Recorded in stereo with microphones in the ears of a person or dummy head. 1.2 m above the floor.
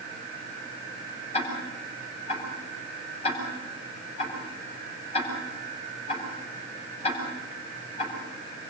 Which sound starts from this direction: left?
Ticking, at 1.3 s.